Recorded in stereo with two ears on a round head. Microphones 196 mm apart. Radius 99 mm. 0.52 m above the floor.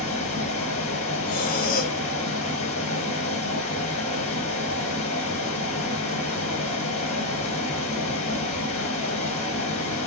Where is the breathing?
40° left (ahead or behind), 0.9 m.